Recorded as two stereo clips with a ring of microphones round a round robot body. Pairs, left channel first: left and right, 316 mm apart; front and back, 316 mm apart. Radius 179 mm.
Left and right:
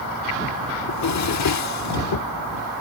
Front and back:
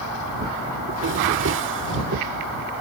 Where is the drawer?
125° left.